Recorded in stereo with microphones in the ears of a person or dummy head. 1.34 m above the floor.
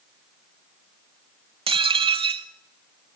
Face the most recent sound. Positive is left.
turn(degrees=-25)  # may be behind; listen again after turning